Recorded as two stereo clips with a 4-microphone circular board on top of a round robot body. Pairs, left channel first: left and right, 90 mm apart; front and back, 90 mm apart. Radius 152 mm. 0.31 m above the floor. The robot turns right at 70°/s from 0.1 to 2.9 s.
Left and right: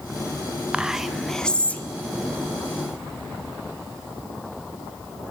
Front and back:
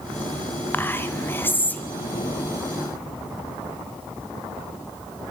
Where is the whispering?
30° right, 0.9 m; by 1.8 s 50° left, 0.9 m.